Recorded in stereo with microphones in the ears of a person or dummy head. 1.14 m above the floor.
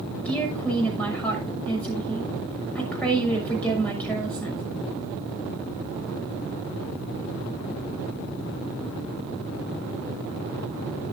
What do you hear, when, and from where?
0.2 s a woman speaking: 10° left (ahead or behind), 6 m